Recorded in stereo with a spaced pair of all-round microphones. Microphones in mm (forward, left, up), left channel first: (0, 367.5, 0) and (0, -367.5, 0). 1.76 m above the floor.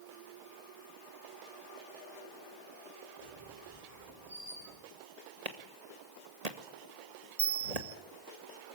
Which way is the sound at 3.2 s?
50° right (ahead or behind).